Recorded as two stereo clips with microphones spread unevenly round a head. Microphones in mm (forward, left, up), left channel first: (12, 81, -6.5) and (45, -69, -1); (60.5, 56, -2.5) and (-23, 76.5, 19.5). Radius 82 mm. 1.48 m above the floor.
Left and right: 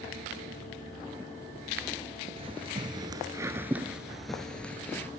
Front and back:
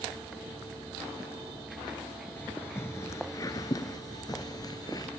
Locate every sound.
2.4 s footsteps: 100° right, 1.8 m; by 5.1 s 25° left, 2 m